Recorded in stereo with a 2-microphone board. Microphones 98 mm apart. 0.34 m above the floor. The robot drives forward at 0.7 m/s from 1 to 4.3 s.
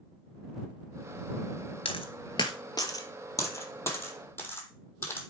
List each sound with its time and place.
1.9 s a dropped coin: 65° left (ahead or behind), 1.1 m; by 5.2 s 25° left (ahead or behind), 2.5 m